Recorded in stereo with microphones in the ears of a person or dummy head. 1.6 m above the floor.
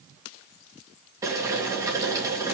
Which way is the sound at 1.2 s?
20° right (ahead or behind).